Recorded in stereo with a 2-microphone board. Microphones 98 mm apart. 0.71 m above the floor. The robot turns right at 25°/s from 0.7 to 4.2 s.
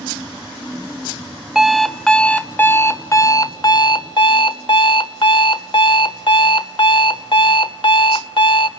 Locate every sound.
1.6 s an alarm clock: 5° right, 0.8 m; by 8.7 s 60° left, 0.8 m